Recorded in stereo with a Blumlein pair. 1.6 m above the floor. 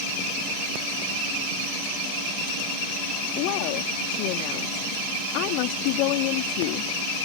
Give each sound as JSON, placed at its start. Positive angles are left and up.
{"t": 3.4, "sound": "a woman speaking", "azimuth_deg": 45}